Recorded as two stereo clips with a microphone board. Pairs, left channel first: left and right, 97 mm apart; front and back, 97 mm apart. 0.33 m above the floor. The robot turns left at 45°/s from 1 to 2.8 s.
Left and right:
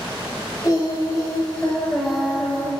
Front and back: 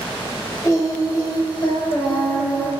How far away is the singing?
About 1.1 m.